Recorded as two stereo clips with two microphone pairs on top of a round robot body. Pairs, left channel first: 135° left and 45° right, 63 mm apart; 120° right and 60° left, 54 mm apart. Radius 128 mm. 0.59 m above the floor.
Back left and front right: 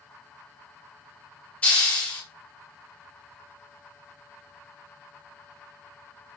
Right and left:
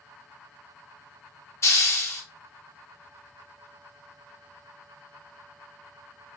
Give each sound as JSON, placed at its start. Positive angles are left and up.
{"t": 1.6, "sound": "a hiss", "azimuth_deg": -155, "distance_m": 1.3}